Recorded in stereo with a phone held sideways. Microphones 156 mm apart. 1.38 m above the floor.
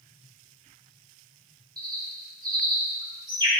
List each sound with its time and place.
1.8 s a bird: 25° right (ahead or behind), 2.5 m